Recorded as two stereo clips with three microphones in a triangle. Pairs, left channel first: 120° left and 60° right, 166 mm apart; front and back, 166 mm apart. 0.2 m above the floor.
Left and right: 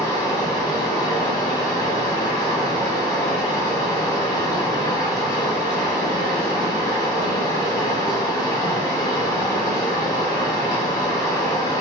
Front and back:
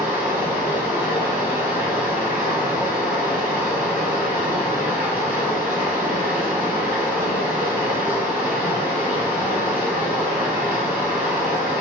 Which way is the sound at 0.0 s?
125° left.